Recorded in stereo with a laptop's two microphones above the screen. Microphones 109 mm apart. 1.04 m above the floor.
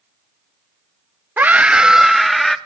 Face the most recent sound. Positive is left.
turn(degrees=5)  # may be behind; listen again after turning